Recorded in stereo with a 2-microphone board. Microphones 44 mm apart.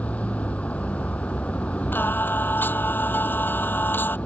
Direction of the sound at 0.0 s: 30° left (ahead or behind).